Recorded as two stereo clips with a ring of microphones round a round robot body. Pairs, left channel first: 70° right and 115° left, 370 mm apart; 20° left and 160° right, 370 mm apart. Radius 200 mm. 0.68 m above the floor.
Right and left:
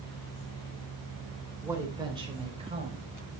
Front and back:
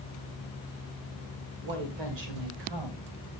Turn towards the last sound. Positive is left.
turn(degrees=-175)